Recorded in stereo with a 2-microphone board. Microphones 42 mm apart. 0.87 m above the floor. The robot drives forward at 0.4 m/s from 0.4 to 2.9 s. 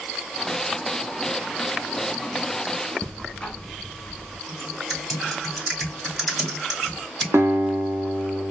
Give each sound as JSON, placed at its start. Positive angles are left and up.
{"t": 3.0, "sound": "ticking", "side_deg": 20, "distance_m": 0.7}
{"t": 4.5, "sound": "typing on a keyboard", "side_deg": 5, "distance_m": 2.0}
{"t": 7.3, "sound": "a guitar", "side_deg": -75, "distance_m": 0.6}